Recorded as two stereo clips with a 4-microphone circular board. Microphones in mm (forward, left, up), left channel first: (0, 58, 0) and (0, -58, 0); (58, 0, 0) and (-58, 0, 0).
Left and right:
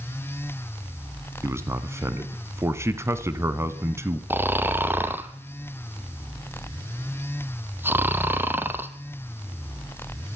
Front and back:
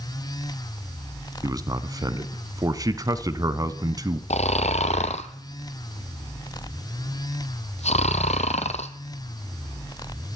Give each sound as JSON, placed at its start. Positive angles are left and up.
{"t": 1.4, "sound": "a man speaking", "azimuth_deg": -145, "distance_m": 1.3}
{"t": 4.3, "sound": "snoring", "azimuth_deg": -15, "distance_m": 1.4}